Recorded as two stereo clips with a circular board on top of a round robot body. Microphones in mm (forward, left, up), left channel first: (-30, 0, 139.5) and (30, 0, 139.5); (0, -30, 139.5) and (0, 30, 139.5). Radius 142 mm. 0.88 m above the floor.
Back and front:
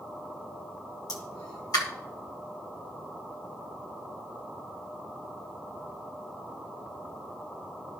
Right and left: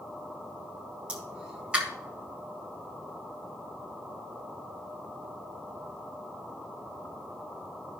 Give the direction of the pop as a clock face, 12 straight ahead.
7 o'clock.